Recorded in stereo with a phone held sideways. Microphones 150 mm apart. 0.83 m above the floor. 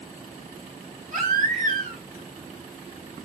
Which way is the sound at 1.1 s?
70° right (ahead or behind).